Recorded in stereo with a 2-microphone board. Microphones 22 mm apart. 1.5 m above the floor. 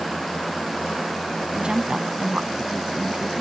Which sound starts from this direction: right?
A woman speaking, at 1.5 s.